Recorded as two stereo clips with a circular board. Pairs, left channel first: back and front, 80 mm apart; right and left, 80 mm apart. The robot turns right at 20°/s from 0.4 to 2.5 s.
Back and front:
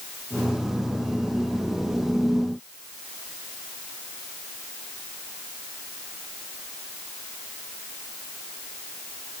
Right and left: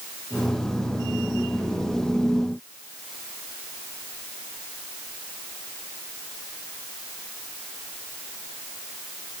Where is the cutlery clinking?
I don't hear cutlery clinking.